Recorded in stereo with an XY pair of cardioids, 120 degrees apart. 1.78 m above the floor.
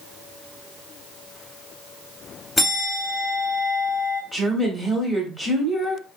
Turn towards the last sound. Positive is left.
turn(degrees=-10)